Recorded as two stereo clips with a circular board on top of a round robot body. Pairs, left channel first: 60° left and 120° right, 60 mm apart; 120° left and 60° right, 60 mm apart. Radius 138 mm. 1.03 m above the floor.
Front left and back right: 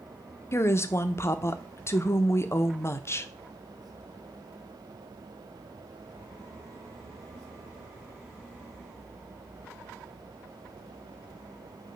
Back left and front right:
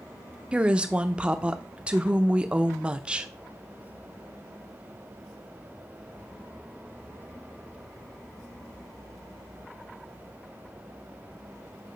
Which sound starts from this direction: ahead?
A woman speaking, at 0.5 s.